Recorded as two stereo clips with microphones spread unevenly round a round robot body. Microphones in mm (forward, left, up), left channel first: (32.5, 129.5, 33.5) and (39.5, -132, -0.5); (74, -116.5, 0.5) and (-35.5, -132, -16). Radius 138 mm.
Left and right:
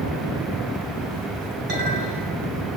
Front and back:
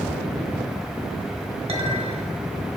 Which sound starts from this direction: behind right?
A clink, at 1.7 s.